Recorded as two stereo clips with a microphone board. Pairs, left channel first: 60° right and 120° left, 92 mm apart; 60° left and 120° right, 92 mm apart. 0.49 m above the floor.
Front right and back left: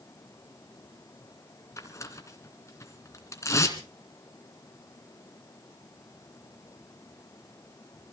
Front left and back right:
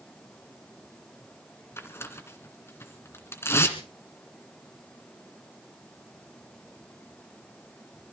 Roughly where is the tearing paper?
Ahead.